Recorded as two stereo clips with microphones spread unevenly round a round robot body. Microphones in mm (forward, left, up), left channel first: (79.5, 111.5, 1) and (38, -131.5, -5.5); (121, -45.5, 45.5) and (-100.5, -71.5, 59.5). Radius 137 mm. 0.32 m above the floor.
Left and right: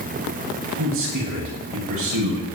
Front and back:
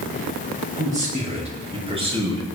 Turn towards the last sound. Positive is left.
turn(degrees=-105)